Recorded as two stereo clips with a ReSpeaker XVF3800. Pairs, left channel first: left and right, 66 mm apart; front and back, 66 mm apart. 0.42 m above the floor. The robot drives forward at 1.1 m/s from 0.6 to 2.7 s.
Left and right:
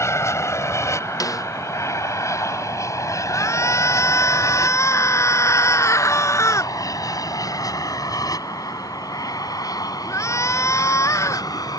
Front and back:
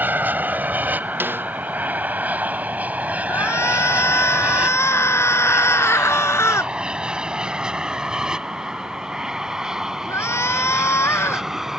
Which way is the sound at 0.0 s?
125° left.